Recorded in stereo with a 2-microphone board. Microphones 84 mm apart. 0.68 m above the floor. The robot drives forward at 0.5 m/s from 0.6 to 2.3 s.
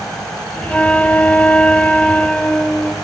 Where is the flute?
15° left (ahead or behind), 0.5 m; by 3.0 s 10° left (ahead or behind), 0.7 m.